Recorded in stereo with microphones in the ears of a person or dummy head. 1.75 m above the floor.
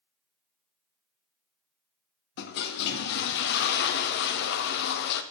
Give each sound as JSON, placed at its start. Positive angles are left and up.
{"t": 2.4, "sound": "a toilet flushing", "side_deg": 60, "distance_m": 0.7}